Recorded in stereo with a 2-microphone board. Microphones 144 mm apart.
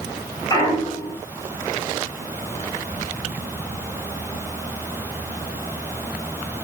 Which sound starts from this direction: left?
A clunk, at 0.5 s.